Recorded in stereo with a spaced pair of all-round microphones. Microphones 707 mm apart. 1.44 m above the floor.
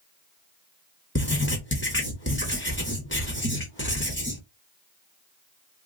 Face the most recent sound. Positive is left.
turn(degrees=15)  # may be behind; listen again after turning